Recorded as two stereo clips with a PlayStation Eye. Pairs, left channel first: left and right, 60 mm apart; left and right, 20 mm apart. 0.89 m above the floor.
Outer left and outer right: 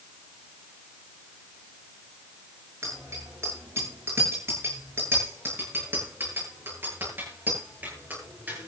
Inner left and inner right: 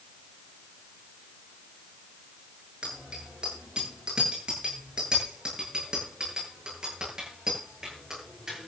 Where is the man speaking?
No man speaking in this recording.